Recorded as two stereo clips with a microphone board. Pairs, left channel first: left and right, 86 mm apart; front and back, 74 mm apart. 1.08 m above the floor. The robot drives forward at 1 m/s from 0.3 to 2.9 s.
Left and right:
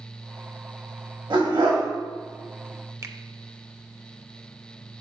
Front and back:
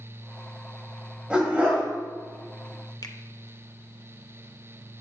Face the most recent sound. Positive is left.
turn(degrees=-35)